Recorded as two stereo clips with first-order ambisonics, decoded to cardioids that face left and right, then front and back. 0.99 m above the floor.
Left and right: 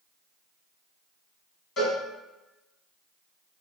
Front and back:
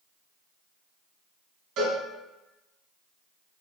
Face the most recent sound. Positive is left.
turn(degrees=145)